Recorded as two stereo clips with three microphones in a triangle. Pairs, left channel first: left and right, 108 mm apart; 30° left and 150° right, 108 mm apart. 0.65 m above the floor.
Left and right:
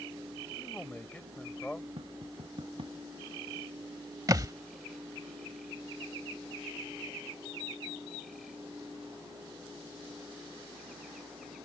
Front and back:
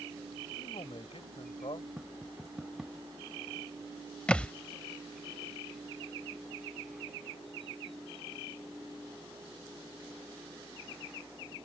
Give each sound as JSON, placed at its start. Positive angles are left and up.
{"t": 0.6, "sound": "a man speaking", "azimuth_deg": 15}
{"t": 2.0, "sound": "tapping", "azimuth_deg": -65}
{"t": 4.3, "sound": "a thud", "azimuth_deg": -45}